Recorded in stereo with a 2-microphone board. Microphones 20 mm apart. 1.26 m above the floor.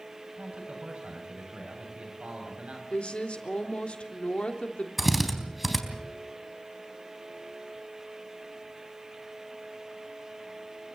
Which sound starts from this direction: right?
A man speaking, at 0.4 s.